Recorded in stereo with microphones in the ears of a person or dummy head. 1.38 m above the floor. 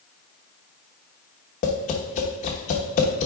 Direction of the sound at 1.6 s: 35° left (ahead or behind).